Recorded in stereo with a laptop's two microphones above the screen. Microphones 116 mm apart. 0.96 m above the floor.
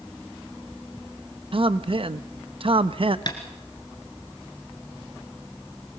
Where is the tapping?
40° left (ahead or behind), 2 m.